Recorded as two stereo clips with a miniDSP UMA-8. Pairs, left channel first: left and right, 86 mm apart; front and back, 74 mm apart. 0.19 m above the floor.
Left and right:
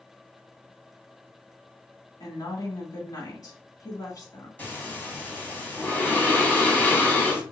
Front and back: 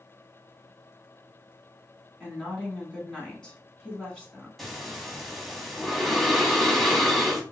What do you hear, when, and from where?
2.2 s a woman speaking: 70° left, 1.5 m
4.6 s breathing: 80° left, 0.9 m